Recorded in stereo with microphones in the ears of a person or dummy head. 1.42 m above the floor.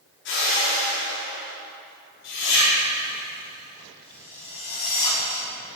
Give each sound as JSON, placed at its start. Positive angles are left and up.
{"t": 0.2, "sound": "a whoosh", "side_deg": 55, "distance_m": 4.0}